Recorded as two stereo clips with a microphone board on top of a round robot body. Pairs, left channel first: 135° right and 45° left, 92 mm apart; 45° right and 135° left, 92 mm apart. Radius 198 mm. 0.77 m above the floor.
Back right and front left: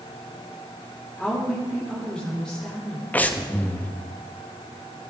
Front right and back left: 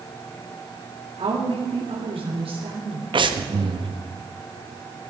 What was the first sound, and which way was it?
A woman speaking, 145° left.